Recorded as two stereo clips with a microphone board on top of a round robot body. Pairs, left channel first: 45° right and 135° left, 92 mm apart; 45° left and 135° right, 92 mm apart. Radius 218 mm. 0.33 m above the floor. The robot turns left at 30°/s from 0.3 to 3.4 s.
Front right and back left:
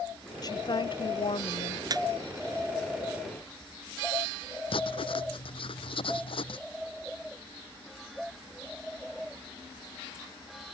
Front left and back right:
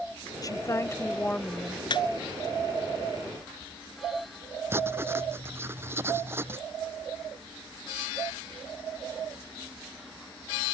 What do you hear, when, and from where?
0.4 s a woman speaking: straight ahead; by 1.8 s 45° right
1.9 s a squeak: 85° left
4.7 s writing: 70° right